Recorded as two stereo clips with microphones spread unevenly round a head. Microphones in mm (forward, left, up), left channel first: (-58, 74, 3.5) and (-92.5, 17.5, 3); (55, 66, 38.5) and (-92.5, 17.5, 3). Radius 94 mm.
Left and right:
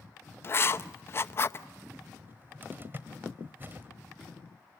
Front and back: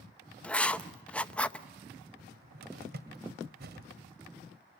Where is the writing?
105° left, 0.8 m.